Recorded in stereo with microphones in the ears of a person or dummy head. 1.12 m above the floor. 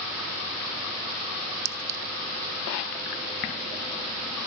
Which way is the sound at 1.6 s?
40° right (ahead or behind).